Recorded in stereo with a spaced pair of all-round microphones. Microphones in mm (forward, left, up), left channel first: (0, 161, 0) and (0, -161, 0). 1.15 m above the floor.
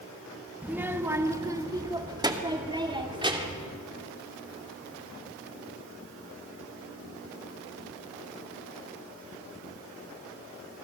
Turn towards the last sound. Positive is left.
turn(degrees=-15)  # may be behind; listen again after turning